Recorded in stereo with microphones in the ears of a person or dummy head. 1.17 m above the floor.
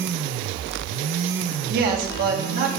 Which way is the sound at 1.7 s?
55° right (ahead or behind).